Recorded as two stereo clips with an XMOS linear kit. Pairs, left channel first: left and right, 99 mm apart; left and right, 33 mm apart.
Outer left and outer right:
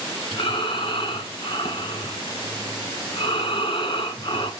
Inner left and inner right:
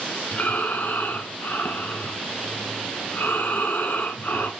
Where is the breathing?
60° left (ahead or behind), 2 m.